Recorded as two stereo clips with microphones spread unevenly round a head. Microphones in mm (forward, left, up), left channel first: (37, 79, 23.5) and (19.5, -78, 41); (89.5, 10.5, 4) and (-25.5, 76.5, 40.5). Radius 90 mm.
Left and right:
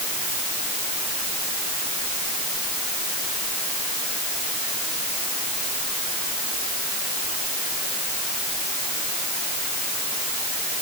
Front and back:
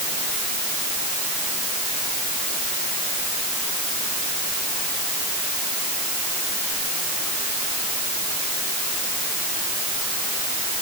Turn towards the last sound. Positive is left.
No sound to turn to.